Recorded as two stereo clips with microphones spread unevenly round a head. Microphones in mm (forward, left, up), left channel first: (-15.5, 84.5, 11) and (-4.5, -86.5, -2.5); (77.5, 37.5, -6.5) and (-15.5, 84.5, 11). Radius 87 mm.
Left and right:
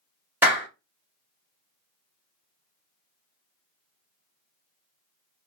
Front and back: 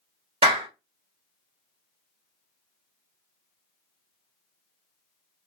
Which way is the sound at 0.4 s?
165° right.